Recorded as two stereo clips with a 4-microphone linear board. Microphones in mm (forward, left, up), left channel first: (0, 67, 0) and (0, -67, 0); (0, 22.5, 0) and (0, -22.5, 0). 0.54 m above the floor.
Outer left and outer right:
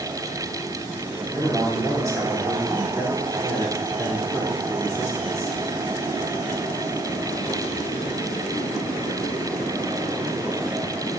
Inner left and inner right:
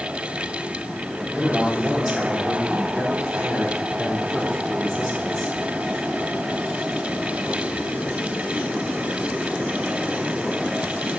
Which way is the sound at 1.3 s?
25° right (ahead or behind).